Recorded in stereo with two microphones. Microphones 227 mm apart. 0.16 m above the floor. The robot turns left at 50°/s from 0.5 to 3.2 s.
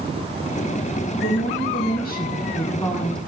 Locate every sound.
1.2 s a woman speaking: 105° left, 2 m; by 3.2 s 5° left, 2 m